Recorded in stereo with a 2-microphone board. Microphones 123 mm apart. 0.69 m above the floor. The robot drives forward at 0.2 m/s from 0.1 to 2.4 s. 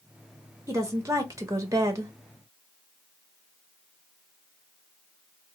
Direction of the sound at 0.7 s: 25° right (ahead or behind).